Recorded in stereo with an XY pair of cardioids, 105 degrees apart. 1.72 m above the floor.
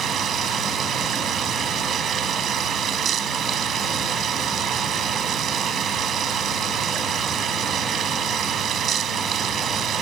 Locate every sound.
0.0 s running water: 60° right